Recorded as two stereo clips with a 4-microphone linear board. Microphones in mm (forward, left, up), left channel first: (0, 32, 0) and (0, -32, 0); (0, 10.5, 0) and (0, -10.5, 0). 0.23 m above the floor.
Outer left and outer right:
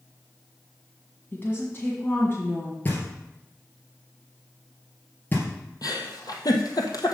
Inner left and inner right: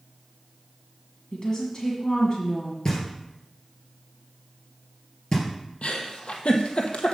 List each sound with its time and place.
1.3 s a woman speaking: 35° left (ahead or behind), 1.9 m
2.9 s knocking: 30° left (ahead or behind), 2.5 m
5.8 s a giggle: 80° left, 1.3 m